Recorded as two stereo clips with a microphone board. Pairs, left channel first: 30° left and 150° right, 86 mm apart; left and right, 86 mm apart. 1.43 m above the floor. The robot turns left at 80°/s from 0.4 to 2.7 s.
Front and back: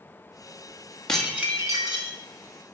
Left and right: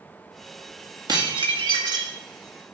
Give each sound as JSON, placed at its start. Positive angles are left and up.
{"t": 1.1, "sound": "dishes clattering", "azimuth_deg": -50, "distance_m": 1.9}